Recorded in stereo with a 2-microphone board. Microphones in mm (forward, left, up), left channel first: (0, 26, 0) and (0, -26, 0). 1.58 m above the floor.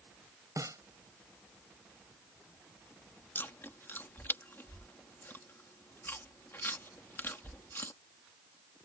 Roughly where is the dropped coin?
No dropped coin in this recording.